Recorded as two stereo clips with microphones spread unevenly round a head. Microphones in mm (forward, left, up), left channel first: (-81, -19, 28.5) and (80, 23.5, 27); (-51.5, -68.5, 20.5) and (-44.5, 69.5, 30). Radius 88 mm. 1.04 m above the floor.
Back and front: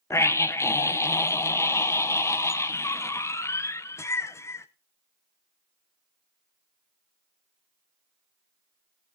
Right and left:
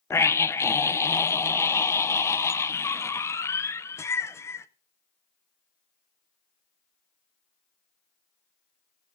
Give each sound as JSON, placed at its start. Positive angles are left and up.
{"t": 0.1, "sound": "a scream", "azimuth_deg": -115, "distance_m": 0.6}